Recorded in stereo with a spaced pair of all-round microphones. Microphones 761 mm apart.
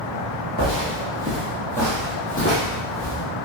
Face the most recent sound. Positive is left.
turn(degrees=30)  # may be behind; listen again after turning